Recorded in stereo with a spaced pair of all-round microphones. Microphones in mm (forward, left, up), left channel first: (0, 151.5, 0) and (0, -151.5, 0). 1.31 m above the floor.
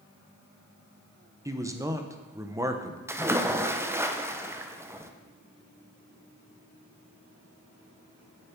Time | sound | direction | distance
1.4 | a man speaking | 10° right (ahead or behind) | 0.7 m
3.1 | a splash | 10° right (ahead or behind) | 0.5 m